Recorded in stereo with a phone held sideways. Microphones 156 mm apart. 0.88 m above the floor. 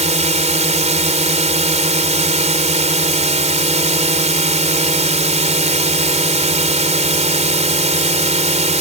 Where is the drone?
45° right (ahead or behind).